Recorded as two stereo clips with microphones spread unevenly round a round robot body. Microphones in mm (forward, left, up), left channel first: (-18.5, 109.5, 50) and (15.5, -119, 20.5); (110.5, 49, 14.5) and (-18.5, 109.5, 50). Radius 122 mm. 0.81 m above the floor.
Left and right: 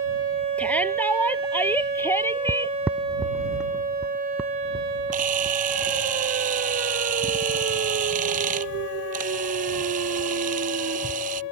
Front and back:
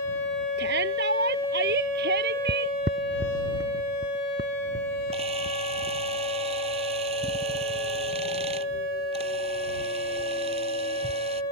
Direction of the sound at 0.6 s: Straight behind.